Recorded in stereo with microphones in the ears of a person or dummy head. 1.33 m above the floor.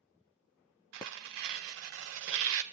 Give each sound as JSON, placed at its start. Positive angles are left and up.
{"t": 0.9, "sound": "tearing paper", "side_deg": -60, "distance_m": 0.6}